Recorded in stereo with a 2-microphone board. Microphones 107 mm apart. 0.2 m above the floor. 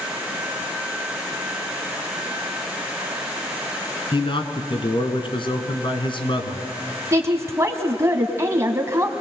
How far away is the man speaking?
About 2 m.